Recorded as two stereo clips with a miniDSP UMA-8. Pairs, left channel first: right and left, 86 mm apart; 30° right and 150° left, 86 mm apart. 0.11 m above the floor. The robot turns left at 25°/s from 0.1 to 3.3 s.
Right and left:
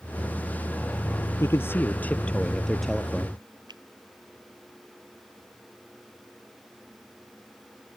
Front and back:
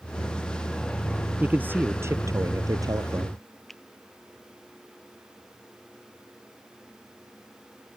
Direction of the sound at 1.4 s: 140° right.